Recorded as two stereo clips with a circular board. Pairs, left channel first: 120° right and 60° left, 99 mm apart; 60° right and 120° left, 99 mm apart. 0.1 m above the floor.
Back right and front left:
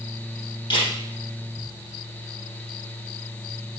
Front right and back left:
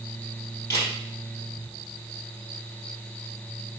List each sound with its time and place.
0.7 s a camera shutter: 115° right, 2.5 m